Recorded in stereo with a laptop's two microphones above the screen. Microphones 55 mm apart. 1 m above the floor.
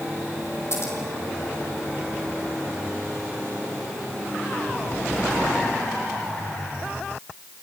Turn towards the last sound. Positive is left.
turn(degrees=55)  # may be behind; listen again after turning